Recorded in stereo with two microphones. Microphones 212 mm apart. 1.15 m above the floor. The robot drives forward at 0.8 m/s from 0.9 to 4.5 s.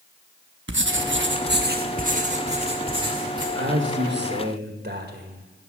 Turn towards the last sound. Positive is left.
turn(degrees=-50)  # may be behind; listen again after turning